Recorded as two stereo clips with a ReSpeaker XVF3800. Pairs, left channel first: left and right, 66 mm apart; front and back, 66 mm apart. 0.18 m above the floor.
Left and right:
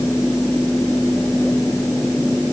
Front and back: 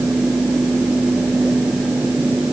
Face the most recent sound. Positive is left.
No sound to turn to.